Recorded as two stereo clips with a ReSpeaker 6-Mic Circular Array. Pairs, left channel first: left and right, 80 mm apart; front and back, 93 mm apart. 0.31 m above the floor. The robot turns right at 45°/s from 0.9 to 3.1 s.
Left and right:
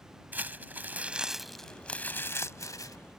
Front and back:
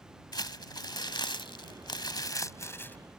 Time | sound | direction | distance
0.3 | crumpling | 25° right | ?